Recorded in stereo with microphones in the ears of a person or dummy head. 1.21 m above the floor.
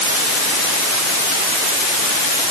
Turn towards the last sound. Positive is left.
No sound to turn to.